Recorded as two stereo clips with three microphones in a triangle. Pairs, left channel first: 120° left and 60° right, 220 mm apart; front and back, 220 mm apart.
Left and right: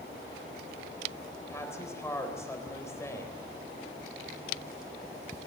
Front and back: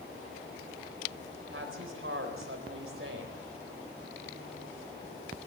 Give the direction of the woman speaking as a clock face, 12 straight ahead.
5 o'clock.